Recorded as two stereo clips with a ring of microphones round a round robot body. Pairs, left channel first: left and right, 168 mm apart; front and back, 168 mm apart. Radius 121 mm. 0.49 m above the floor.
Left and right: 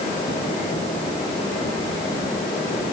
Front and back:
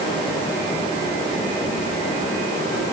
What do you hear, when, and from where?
Only background noise.